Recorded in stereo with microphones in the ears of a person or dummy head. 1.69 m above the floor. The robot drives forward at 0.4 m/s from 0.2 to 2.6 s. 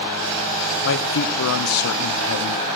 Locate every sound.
0.8 s a man speaking: 60° left (ahead or behind), 0.9 m; by 2.6 s 70° left (ahead or behind), 0.8 m